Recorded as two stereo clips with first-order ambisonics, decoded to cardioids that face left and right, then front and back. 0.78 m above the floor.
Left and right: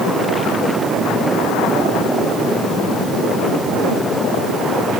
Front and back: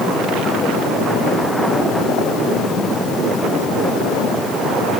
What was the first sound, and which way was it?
Only background noise.